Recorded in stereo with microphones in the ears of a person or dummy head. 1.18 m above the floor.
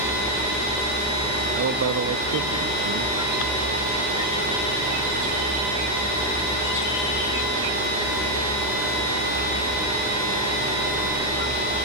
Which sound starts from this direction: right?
A man speaking, at 1.6 s.